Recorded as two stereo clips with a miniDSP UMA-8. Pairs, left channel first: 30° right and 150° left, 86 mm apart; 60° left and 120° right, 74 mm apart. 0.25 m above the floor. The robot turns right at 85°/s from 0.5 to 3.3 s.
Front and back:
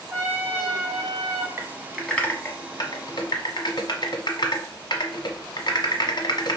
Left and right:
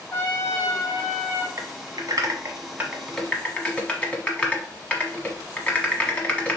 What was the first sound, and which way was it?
A trumpet, 105° left.